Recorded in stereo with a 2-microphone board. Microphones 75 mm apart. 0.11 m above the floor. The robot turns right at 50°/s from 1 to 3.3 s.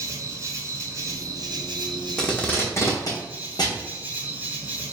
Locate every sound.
0.0 s an insect: 135° right, 0.9 m; by 4.9 s 20° right, 0.9 m
2.2 s tape being pulled: 10° left (ahead or behind), 1.3 m; by 3.8 s 65° left (ahead or behind), 1.3 m